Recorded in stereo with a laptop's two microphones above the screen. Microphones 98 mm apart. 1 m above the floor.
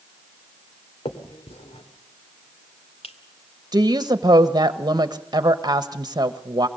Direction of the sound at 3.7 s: 45° right (ahead or behind).